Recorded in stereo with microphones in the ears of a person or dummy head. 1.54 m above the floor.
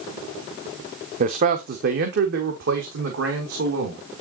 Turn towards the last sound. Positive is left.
turn(degrees=-70)  # may be behind; listen again after turning